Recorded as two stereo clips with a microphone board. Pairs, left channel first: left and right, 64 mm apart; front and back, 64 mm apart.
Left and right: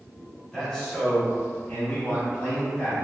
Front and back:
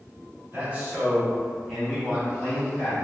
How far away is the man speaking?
About 1.3 m.